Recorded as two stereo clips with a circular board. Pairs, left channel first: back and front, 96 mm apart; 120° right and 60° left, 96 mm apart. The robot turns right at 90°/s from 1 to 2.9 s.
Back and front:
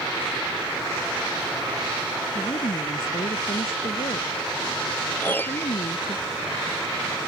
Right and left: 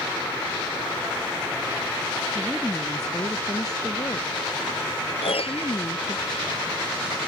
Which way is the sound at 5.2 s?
110° right.